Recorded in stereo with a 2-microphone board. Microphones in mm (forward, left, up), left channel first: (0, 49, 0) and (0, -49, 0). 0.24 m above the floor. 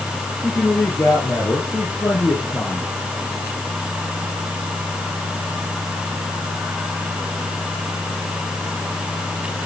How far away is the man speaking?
About 5.5 m.